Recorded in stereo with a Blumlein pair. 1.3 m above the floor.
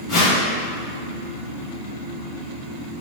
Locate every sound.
0.1 s a whoosh: 35° left, 1.5 m